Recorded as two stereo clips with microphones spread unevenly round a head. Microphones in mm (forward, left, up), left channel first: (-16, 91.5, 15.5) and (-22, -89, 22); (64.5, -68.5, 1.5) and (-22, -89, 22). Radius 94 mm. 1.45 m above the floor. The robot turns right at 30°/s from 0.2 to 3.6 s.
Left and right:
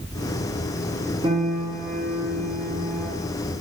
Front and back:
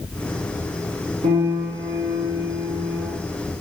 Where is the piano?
155° right, 1.0 m; by 3.1 s 100° right, 1.0 m.